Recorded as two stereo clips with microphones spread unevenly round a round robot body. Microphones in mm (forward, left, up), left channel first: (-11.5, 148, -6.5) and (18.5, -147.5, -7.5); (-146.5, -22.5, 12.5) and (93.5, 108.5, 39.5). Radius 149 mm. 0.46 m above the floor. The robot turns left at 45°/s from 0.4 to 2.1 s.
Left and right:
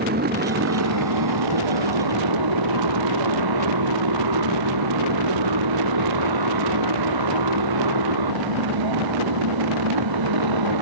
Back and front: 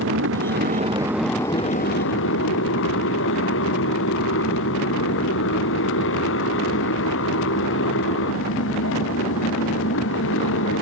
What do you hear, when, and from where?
0.0 s a motorcycle: 25° right; by 10.8 s 100° right